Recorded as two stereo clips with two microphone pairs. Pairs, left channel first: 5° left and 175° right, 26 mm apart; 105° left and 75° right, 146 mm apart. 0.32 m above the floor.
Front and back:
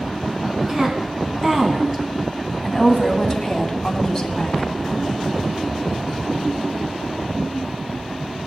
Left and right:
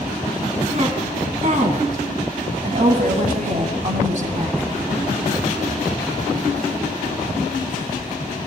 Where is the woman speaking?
110° right, 3 m; by 4.7 s 50° right, 2.0 m.